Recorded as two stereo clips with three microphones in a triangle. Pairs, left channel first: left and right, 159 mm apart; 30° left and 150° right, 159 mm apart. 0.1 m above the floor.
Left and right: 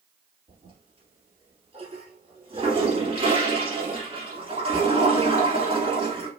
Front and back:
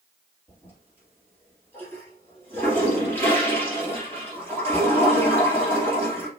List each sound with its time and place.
0.5 s a toilet flushing: 45° right, 2.5 m